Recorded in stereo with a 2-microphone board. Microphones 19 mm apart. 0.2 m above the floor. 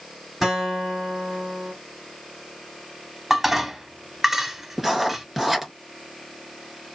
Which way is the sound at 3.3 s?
15° right (ahead or behind).